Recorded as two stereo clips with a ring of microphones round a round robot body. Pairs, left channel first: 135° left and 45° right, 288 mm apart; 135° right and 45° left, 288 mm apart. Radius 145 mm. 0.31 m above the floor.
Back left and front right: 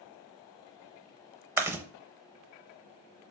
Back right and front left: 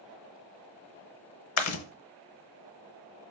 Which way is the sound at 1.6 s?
125° right.